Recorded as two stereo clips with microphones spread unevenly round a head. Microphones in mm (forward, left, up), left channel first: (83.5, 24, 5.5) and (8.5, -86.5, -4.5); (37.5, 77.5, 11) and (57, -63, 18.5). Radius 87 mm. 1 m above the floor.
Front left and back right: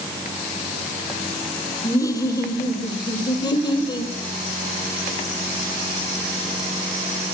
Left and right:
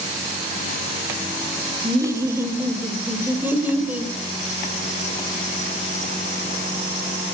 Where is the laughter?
15° right, 4 m; by 4.1 s straight ahead, 5.5 m.